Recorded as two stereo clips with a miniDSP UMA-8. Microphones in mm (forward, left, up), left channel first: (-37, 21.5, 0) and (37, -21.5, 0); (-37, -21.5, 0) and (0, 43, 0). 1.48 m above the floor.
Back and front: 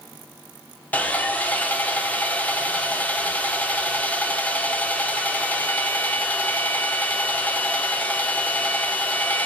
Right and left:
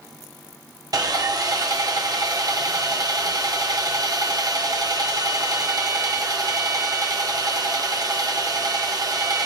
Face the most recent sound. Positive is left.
turn(degrees=80)